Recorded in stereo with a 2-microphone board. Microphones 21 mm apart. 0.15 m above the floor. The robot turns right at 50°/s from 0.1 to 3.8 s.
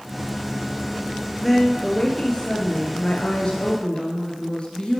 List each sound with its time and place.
1.4 s a woman speaking: 10° left, 2 m; by 5.0 s 125° left, 2 m